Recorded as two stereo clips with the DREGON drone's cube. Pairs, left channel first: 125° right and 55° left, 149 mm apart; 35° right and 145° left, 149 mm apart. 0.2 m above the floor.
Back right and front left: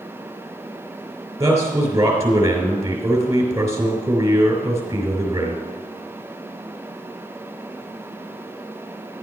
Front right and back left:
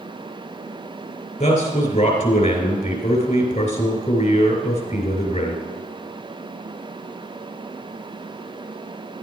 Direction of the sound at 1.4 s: 10° right.